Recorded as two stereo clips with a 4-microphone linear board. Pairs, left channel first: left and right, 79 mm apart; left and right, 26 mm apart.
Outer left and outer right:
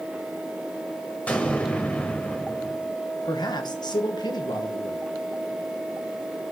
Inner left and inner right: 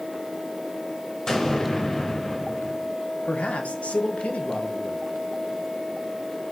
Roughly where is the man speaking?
Left.